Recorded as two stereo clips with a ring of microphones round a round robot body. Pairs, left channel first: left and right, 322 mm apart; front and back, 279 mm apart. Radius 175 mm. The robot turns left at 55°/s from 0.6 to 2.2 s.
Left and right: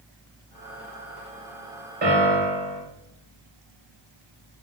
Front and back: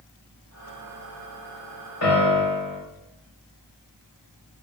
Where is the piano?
25° right, 3 m; by 2.8 s 35° right, 3 m.